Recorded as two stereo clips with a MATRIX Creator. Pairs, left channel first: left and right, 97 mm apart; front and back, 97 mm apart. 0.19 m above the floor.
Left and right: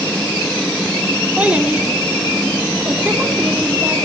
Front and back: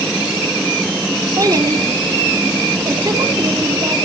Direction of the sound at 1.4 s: 160° right.